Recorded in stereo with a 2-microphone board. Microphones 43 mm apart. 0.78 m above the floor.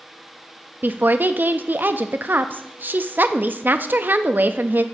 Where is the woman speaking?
50° right (ahead or behind), 0.5 m.